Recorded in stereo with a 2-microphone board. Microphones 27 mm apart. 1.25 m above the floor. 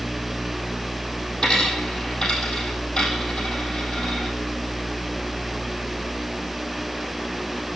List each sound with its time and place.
1.4 s a dropped coin: 30° left (ahead or behind), 4 m